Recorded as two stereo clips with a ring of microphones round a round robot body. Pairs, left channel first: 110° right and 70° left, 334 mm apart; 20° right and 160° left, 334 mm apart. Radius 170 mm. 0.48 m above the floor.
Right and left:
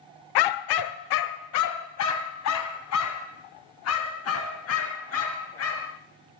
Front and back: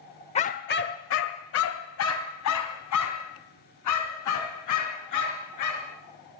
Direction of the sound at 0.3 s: 95° right.